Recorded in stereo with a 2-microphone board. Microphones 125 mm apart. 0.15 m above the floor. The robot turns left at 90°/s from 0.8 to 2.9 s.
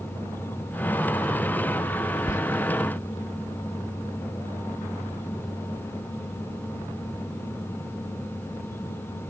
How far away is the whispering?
About 1.2 m.